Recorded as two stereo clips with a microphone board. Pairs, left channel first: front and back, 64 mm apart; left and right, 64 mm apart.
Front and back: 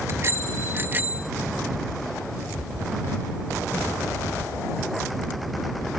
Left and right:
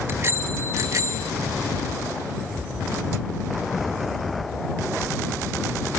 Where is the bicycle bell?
140° right; by 1.3 s 115° right.